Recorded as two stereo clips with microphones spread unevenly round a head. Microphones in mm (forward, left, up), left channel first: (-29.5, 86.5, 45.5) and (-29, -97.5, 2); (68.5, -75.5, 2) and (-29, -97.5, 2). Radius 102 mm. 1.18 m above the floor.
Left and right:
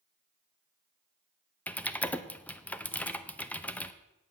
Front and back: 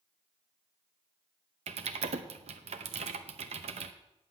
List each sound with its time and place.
1.7 s typing on a keyboard: 170° left, 0.6 m